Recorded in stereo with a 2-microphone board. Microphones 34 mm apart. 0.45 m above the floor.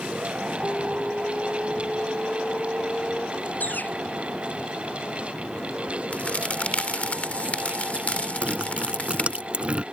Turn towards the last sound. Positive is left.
turn(degrees=-35)  # may be behind; listen again after turning